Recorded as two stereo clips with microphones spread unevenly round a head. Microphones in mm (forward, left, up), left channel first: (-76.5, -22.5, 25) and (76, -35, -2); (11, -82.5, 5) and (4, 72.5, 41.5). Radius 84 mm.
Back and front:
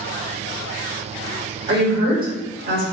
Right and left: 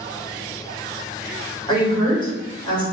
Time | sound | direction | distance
1.7 | a woman speaking | 25° right | 1.7 m